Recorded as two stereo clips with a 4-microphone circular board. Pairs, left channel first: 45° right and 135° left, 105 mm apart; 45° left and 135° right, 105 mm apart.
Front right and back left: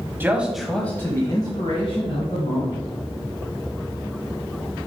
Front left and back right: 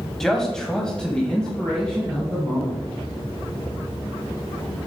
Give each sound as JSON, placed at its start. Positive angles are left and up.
{"t": 0.2, "sound": "a man speaking", "azimuth_deg": 125, "distance_m": 1.2}